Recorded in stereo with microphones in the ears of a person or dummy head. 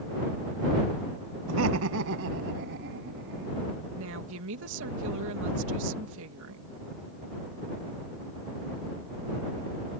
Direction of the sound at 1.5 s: 85° right.